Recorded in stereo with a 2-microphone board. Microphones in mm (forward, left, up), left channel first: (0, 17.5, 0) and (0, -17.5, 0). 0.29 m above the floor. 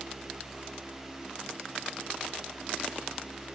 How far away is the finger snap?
I don't hear a finger snap.